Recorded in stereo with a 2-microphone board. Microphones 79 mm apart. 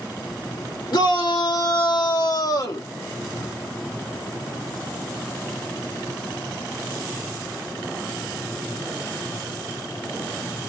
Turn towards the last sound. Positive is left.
turn(degrees=40)  # may be behind; listen again after turning